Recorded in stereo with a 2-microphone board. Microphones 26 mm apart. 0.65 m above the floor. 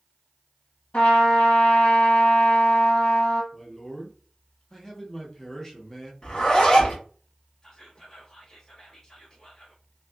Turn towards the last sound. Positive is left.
turn(degrees=20)  # may be behind; listen again after turning